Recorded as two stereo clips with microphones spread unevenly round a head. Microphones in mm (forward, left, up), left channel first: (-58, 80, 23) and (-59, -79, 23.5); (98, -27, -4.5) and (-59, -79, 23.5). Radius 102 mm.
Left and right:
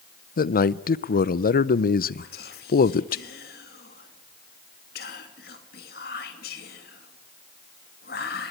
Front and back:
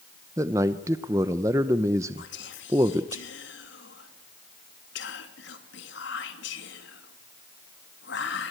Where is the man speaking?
120° left, 0.8 m.